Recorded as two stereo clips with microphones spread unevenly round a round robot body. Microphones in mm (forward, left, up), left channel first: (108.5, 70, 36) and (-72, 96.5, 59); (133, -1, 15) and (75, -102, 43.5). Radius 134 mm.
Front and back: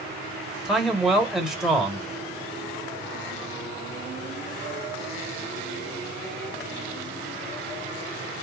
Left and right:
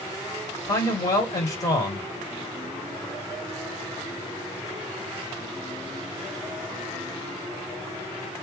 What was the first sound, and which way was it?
A man speaking, 80° left.